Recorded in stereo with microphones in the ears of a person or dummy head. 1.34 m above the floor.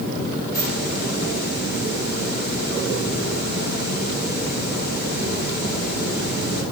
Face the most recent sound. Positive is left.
turn(degrees=55)  # may be behind; listen again after turning